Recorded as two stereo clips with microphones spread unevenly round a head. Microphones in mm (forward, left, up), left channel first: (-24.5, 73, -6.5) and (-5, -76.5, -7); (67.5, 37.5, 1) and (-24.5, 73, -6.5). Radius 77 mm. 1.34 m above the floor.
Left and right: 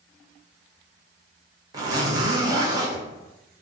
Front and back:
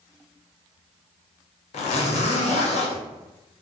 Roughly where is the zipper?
Ahead.